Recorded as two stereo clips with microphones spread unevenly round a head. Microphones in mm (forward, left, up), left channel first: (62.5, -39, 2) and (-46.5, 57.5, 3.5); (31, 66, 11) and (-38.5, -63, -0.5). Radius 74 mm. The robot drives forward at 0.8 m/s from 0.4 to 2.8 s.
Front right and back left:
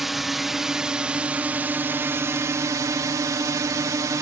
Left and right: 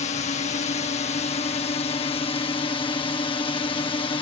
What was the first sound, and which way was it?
A drone, 50° left.